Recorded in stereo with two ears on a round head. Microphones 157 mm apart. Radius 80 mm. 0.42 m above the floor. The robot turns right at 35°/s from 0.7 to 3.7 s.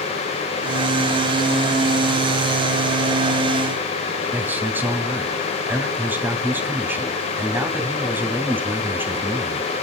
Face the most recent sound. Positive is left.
turn(degrees=-10)  # may be behind; listen again after turning